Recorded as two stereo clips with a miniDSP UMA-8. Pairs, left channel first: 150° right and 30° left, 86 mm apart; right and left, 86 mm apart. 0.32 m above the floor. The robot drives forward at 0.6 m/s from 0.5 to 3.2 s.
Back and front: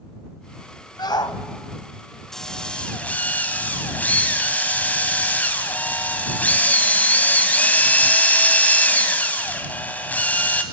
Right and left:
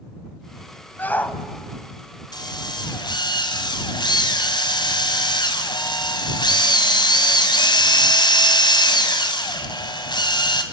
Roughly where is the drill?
Ahead right.